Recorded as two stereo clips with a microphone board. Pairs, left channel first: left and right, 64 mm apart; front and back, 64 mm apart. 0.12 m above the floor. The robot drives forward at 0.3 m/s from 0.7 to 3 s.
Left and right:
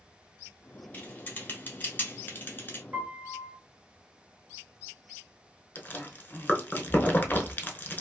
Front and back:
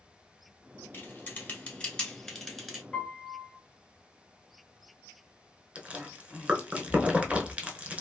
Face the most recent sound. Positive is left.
turn(degrees=125)